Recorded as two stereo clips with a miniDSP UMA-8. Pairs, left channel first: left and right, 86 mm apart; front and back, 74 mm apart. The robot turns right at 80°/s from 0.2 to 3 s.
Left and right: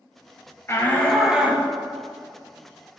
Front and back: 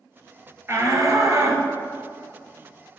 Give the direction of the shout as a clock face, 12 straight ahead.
7 o'clock.